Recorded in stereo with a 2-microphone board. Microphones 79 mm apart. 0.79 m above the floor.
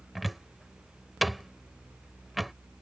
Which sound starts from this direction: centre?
A cupboard door, at 0.1 s.